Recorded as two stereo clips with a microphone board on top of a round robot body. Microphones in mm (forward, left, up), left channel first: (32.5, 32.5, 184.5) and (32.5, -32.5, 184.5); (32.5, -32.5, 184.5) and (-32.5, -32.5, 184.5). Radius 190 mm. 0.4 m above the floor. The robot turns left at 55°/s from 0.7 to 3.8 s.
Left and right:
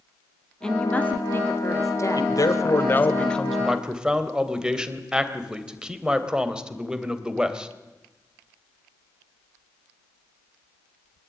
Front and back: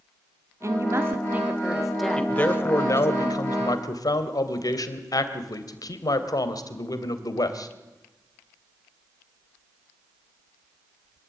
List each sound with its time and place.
0.6 s a woman speaking: 165° left, 1.8 m; by 3.2 s 30° left, 1.8 m
2.2 s a man speaking: 75° left, 3 m; by 7.7 s 15° right, 3 m